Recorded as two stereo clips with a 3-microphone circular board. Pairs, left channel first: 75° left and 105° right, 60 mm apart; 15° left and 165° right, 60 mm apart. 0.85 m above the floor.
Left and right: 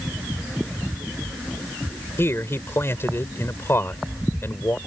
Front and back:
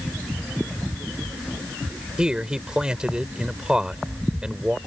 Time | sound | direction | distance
2.2 | a man speaking | 120° left | ?